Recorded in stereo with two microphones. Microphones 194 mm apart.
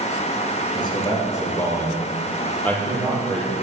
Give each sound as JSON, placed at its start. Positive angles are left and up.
{"t": 0.8, "sound": "a man speaking", "side_deg": 25, "distance_m": 3.0}